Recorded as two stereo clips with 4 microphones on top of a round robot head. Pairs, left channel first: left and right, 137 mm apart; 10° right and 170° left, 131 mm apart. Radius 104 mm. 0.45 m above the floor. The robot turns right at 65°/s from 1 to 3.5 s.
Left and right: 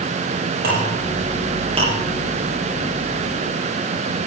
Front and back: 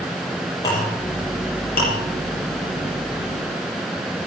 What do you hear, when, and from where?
0.6 s a clink: 80° right, 8 m; by 1.9 s 20° right, 8 m